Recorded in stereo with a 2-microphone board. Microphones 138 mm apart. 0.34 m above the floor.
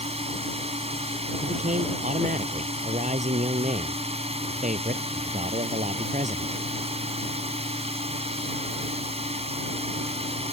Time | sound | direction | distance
0.0 | a drone | 50° right (ahead or behind) | ?
1.4 | a man speaking | 70° right (ahead or behind) | ?